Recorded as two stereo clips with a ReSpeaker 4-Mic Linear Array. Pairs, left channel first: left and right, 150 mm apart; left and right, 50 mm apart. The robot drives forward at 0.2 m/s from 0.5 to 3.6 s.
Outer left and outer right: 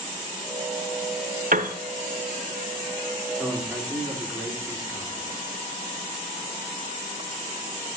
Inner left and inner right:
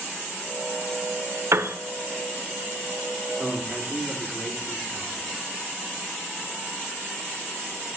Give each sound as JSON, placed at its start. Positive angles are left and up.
{"t": 1.5, "sound": "a piano", "side_deg": -65, "distance_m": 0.7}
{"t": 3.4, "sound": "a man speaking", "side_deg": 0, "distance_m": 3.0}